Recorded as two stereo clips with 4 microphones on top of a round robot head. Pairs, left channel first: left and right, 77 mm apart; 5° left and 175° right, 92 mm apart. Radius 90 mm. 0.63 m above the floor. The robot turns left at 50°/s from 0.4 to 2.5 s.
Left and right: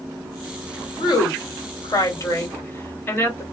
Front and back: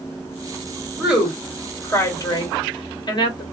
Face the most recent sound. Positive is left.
turn(degrees=30)